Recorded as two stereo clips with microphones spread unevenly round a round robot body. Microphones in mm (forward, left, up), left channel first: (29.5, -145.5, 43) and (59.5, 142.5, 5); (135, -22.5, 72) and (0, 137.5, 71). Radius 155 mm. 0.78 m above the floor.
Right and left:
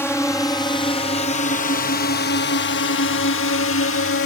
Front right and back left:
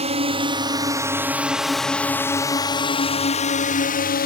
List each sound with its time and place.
0.0 s a drone: straight behind; by 4.3 s 65° right